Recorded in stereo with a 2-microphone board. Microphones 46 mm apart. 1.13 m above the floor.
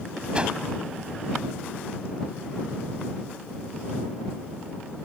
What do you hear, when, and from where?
0.3 s a whoosh: 25° right (ahead or behind)